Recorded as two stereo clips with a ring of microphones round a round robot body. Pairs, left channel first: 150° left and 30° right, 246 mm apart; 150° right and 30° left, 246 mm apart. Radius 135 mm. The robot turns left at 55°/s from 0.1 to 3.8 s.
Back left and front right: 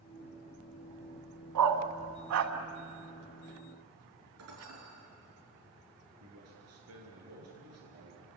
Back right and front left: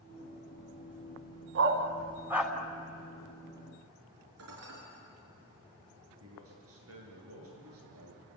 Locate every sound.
1.6 s a dog barking: 10° right, 1.8 m; by 2.5 s 65° right, 1.8 m
4.4 s dishes clattering: straight ahead, 6 m
6.2 s a man speaking: 5° right, 9.5 m